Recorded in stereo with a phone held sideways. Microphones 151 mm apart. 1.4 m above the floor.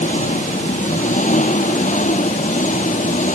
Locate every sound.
0.0 s an engine running: 55° left (ahead or behind)